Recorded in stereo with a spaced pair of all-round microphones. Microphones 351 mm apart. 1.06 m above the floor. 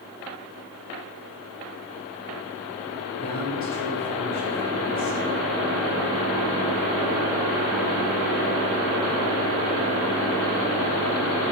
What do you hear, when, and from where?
3.2 s a man speaking: 40° left (ahead or behind), 4 m; by 5.2 s 25° left (ahead or behind), 4 m